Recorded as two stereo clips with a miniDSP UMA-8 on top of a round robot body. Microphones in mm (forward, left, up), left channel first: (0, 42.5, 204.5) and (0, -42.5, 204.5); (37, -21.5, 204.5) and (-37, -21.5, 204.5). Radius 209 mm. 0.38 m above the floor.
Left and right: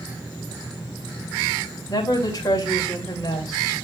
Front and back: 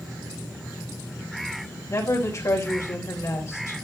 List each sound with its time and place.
1.9 s a woman speaking: 45° left, 2.5 m